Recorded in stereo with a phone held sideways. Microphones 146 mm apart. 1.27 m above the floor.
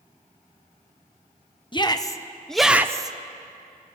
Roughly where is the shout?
Left.